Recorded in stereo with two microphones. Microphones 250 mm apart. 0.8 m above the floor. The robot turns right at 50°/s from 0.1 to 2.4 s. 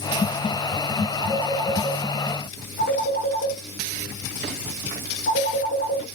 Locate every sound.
1.2 s a phone ringing: 10° right (ahead or behind), 7.5 m; by 6.0 s 50° left (ahead or behind), 7.5 m